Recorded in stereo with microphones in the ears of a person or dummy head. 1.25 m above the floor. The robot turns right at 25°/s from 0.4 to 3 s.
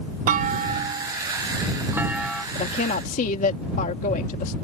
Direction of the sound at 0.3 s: 50° right.